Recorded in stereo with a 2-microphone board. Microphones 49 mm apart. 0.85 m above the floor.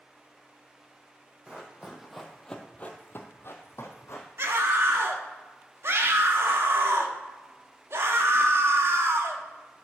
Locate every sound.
1.5 s running footsteps: 20° right (ahead or behind), 2.0 m; by 4.3 s 65° left (ahead or behind), 2 m
4.4 s a scream: 60° right (ahead or behind), 1.2 m